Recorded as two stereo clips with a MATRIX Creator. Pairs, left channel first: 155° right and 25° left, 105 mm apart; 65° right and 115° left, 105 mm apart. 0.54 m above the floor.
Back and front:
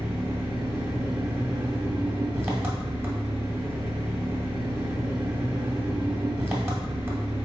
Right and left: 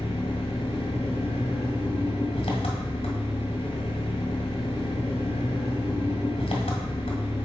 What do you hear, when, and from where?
0.0 s an engine running: 45° right, 1.9 m